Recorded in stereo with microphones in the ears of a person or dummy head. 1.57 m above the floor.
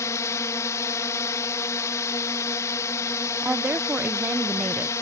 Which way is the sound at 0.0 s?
15° left (ahead or behind).